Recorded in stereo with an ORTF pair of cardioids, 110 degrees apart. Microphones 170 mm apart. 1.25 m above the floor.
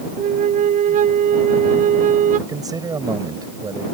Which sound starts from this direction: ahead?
A man speaking, at 2.5 s.